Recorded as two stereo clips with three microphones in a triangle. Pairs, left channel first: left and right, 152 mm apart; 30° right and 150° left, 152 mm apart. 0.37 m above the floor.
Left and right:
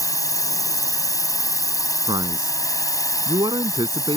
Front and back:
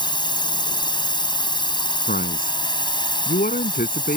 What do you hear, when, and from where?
0.0 s a drone: 25° left
2.1 s a man speaking: 30° right